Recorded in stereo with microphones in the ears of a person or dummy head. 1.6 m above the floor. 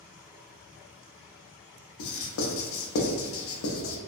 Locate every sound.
2.0 s writing: 65° left (ahead or behind), 0.6 m